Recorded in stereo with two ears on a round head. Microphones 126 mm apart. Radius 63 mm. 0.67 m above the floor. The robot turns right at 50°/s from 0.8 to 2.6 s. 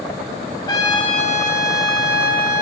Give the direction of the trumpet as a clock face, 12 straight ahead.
11 o'clock.